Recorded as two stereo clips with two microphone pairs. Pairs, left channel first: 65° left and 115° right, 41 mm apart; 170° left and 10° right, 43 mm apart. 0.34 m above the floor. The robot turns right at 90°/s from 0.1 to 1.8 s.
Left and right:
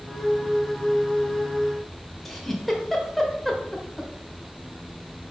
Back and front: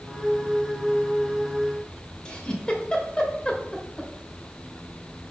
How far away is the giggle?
About 1.3 m.